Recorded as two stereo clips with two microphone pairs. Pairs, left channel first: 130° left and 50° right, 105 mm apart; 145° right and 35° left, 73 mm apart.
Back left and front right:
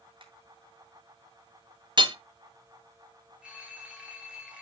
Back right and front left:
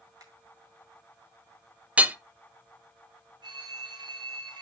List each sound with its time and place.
0.2 s a finger snap: 5° right, 3 m
2.0 s hammering: 30° right, 0.8 m
3.4 s a phone ringing: 35° left, 2.5 m